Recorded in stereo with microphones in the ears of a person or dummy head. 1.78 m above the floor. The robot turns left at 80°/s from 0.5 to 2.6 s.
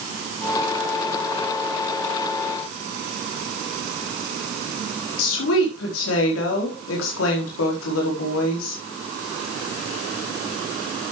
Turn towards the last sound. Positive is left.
turn(degrees=80)